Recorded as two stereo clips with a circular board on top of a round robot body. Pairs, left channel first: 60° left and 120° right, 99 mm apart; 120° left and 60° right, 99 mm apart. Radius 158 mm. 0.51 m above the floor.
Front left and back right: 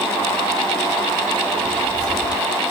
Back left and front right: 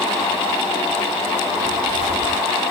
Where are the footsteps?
50° right, 4 m.